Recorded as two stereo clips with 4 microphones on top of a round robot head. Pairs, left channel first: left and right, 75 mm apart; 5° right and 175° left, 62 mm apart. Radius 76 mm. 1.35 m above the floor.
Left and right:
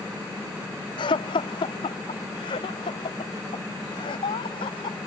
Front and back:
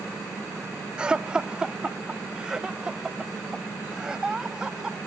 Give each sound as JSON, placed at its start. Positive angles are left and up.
{"t": 1.0, "sound": "laughter", "azimuth_deg": 100}